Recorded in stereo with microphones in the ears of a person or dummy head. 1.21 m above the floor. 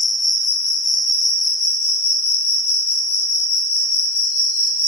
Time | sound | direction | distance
0.0 | an insect | 40° left (ahead or behind) | 1.3 m